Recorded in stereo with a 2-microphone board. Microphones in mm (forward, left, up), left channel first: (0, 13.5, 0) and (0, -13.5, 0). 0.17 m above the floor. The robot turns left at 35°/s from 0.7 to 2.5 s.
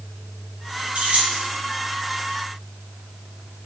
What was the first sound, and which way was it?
Keys jangling, 55° right (ahead or behind).